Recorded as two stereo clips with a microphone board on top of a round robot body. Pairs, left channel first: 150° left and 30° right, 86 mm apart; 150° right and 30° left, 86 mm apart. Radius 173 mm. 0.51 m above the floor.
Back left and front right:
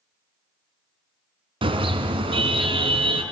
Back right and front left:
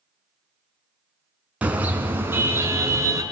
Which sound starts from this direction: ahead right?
A car horn, at 1.6 s.